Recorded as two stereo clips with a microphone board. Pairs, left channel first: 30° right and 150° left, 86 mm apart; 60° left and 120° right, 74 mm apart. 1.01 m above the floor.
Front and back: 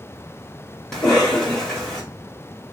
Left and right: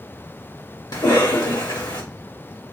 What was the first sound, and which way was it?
A cough, 55° left.